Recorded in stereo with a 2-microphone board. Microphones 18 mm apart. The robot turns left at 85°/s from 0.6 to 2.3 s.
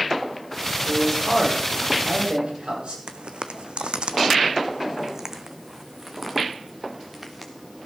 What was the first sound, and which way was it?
A man speaking, 35° left (ahead or behind).